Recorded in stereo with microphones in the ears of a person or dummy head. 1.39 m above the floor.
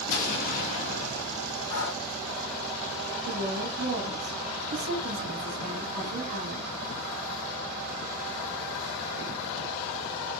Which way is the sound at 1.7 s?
55° left (ahead or behind).